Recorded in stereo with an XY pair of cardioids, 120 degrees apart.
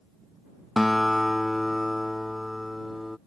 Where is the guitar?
5° left.